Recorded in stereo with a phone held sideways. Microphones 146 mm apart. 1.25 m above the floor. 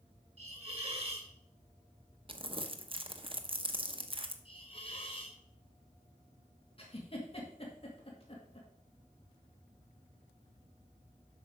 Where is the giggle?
40° left (ahead or behind), 2 m.